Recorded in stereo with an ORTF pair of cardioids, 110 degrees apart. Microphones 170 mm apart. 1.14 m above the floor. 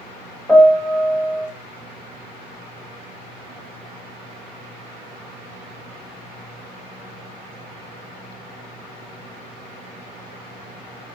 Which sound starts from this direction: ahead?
A piano, at 0.5 s.